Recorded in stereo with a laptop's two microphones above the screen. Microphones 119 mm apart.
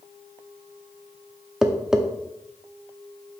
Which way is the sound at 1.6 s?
5° right (ahead or behind).